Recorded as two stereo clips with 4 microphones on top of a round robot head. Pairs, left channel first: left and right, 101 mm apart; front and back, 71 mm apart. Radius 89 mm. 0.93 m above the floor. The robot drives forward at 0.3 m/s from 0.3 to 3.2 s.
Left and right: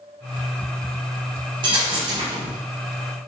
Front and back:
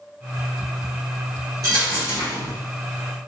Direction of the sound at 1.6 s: 130° right.